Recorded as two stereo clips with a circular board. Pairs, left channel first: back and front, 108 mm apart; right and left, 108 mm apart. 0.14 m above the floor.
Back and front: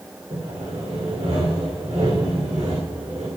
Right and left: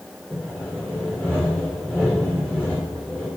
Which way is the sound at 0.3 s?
15° right.